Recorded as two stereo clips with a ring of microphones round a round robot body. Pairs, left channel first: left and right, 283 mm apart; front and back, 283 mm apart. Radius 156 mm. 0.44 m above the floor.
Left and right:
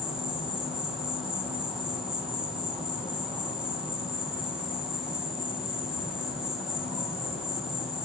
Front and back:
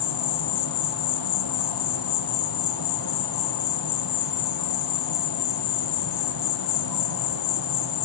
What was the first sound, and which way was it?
An insect, straight ahead.